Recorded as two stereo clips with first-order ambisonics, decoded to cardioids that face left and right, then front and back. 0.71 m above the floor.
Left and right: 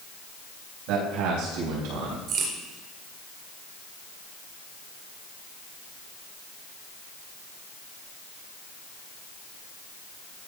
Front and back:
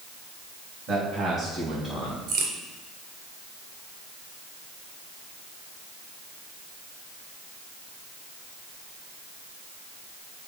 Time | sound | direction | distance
0.9 | a man speaking | 115° right | 5 m
2.3 | a crack | 140° right | 3.5 m